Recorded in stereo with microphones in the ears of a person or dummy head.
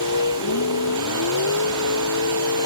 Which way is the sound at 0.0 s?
75° left (ahead or behind).